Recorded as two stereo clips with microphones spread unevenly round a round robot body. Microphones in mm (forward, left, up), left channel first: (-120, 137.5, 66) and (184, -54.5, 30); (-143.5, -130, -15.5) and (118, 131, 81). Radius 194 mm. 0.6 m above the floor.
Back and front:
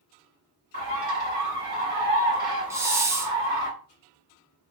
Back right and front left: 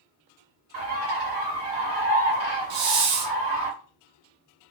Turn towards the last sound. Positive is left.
turn(degrees=45)